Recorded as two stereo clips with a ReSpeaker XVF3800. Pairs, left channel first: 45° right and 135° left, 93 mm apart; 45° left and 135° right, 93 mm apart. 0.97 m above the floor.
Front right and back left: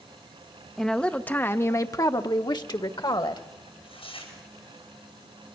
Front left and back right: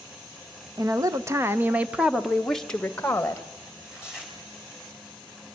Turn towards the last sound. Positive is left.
turn(degrees=-55)